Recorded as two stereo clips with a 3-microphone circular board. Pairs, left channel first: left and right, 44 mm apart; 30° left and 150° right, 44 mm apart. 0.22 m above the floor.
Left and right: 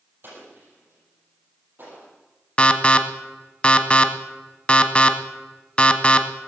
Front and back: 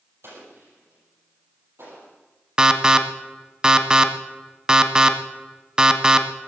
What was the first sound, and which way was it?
An explosion, 130° right.